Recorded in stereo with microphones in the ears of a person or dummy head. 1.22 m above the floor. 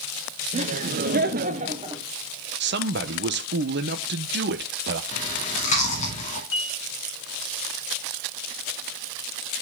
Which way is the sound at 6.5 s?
60° left (ahead or behind).